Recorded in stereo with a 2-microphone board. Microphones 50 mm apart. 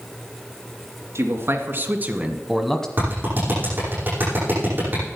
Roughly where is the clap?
Right.